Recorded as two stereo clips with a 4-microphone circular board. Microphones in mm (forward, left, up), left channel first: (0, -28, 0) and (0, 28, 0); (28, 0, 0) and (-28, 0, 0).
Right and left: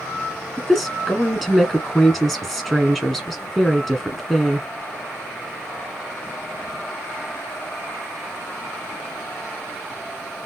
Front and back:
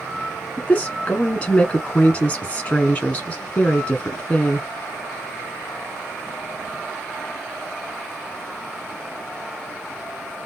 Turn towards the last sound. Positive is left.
turn(degrees=-5)